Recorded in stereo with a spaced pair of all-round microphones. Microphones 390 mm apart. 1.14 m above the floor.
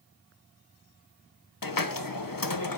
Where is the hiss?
60° left (ahead or behind), 0.8 m.